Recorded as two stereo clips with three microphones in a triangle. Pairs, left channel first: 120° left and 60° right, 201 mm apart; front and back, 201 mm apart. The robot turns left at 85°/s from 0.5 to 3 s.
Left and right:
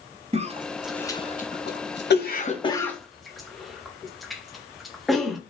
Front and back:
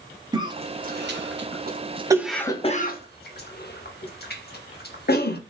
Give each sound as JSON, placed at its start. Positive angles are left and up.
{"t": 0.3, "sound": "a cough", "azimuth_deg": -115, "distance_m": 0.6}